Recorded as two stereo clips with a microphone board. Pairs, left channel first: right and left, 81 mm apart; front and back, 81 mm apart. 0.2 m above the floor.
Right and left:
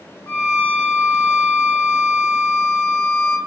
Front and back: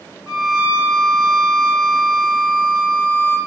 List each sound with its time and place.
0.3 s a violin: 125° right, 1.7 m